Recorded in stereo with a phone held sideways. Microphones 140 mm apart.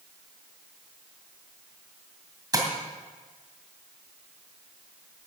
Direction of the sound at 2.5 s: 30° right (ahead or behind).